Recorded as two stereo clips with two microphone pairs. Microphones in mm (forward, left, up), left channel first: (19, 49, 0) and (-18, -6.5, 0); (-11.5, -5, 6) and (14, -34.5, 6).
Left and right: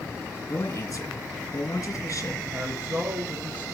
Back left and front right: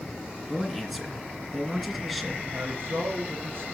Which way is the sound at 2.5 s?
70° right.